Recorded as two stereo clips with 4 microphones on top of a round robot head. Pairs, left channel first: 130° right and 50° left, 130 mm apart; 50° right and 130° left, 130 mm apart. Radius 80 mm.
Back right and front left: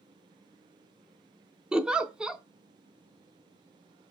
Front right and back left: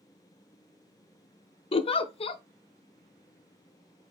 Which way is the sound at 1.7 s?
30° right.